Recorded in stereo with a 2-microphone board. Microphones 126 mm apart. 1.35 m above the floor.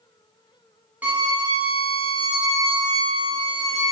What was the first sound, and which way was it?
A violin, 10° right (ahead or behind).